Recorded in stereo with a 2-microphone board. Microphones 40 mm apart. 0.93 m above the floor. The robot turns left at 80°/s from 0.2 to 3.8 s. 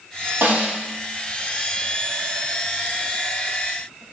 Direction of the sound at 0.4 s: 65° right (ahead or behind).